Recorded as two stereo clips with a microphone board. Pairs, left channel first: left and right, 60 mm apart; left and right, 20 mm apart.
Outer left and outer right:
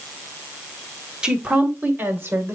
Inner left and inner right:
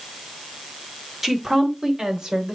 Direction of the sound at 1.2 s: 15° right (ahead or behind).